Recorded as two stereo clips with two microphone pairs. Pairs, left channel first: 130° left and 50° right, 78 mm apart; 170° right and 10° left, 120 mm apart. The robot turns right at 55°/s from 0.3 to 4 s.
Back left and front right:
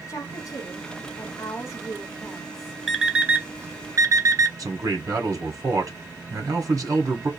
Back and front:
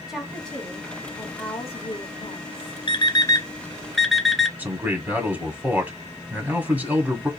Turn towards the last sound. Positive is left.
turn(degrees=-60)